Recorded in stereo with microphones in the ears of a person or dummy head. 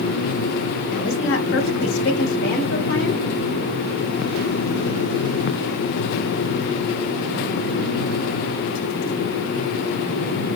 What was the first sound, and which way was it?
A woman speaking, 45° left (ahead or behind).